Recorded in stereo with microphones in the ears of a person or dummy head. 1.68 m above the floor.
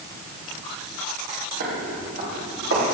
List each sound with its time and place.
1.6 s footsteps: 40° right (ahead or behind), 2.5 m; by 2.9 s 55° right (ahead or behind), 3 m